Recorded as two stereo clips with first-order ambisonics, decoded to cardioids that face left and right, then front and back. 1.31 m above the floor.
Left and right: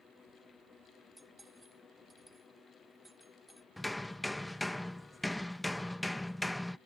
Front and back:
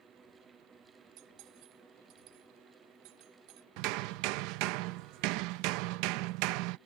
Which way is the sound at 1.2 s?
175° right.